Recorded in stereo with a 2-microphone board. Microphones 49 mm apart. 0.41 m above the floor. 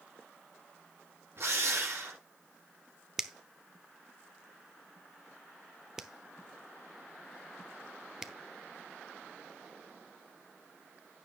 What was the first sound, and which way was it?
A drill, 50° right (ahead or behind).